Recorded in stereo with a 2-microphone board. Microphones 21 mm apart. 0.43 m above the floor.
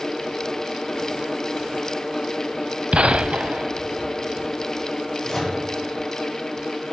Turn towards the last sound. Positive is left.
turn(degrees=15)  # may be behind; listen again after turning